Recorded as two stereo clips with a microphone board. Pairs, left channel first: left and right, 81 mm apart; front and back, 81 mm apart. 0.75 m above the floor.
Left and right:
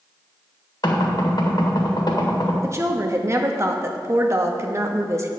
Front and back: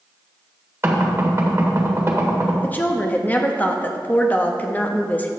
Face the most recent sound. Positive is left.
turn(degrees=-60)